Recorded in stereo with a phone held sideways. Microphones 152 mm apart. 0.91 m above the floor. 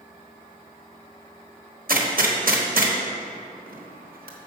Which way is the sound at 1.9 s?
75° right (ahead or behind).